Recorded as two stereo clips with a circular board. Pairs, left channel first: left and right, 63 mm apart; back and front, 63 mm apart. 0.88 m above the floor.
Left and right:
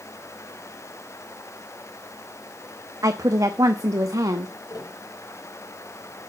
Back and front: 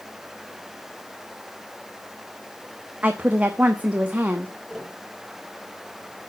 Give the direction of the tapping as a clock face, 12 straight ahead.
9 o'clock.